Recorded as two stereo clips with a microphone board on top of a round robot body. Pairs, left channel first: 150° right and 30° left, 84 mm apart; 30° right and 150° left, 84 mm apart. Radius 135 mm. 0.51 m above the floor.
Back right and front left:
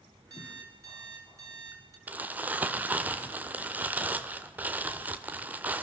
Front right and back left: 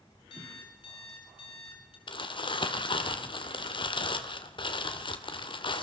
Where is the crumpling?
40° right, 1.7 m.